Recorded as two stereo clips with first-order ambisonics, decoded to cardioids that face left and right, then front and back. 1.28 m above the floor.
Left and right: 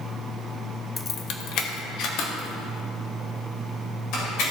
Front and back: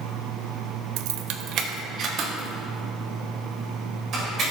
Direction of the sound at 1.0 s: 170° left.